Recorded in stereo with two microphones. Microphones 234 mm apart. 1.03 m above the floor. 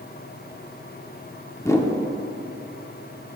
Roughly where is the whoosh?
Centre.